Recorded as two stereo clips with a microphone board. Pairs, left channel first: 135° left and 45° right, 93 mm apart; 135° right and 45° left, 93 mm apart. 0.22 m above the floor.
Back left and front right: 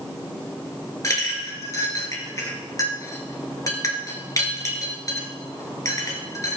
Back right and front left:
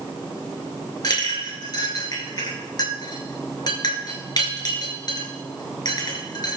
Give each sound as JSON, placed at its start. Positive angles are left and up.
{"t": 1.0, "sound": "a clink", "azimuth_deg": -175, "distance_m": 2.5}